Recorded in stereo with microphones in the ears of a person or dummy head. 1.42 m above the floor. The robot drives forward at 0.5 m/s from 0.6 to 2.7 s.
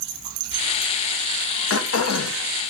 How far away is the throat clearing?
About 0.9 m.